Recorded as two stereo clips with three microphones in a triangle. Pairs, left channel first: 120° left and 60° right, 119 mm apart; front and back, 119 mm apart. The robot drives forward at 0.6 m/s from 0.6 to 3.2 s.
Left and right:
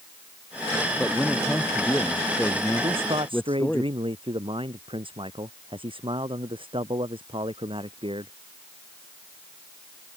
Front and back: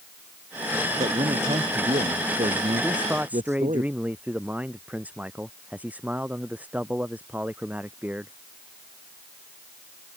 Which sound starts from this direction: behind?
A man speaking, at 1.0 s.